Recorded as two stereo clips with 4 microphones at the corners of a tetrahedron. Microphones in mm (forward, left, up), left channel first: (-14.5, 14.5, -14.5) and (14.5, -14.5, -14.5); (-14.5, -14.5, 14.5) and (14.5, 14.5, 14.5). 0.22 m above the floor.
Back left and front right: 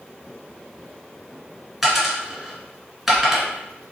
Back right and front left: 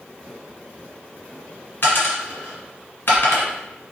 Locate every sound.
1.8 s a dropped coin: 130° right, 1.1 m